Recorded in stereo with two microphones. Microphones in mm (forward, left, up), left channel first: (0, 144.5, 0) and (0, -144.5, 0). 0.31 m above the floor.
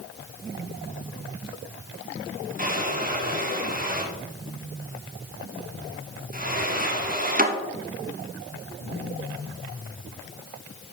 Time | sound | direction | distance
2.6 | a drawer | 30° right (ahead or behind) | 1.2 m